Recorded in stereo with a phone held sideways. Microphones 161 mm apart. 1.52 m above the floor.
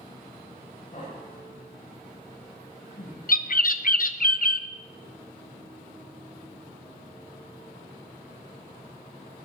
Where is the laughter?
50° left (ahead or behind), 9.5 m; by 3.2 s 60° left (ahead or behind), 9.5 m.